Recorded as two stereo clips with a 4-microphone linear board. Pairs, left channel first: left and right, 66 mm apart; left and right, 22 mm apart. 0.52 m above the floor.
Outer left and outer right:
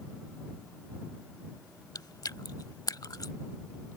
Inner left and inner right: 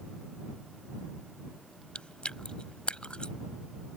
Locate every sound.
1.9 s chewing: 80° left